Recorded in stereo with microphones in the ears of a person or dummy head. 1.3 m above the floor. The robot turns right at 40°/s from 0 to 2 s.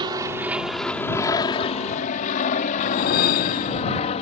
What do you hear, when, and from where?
0.0 s an aircraft: 25° right (ahead or behind); by 4.2 s 35° left (ahead or behind)
2.8 s a whoosh: 50° left (ahead or behind)